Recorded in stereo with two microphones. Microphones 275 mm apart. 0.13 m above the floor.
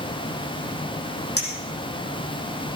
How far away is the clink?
About 4 m.